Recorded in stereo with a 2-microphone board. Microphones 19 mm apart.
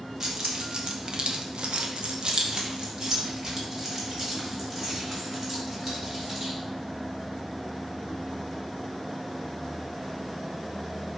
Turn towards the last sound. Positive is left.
turn(degrees=-10)  # may be behind; listen again after turning